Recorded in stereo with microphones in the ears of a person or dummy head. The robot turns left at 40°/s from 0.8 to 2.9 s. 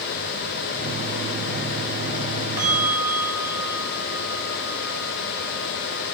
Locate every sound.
2.6 s a bell: 10° right (ahead or behind), 0.8 m; by 6.0 s 25° right (ahead or behind), 0.8 m